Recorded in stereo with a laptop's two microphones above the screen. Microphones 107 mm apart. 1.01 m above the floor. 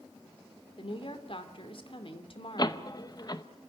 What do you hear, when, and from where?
0.8 s a woman speaking: 55° left (ahead or behind), 2.5 m
2.6 s a door slam: 40° left (ahead or behind), 0.7 m